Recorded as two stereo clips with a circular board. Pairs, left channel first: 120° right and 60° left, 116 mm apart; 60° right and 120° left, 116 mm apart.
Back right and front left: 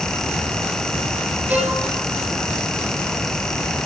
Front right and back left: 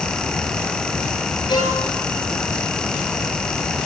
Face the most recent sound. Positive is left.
turn(degrees=-15)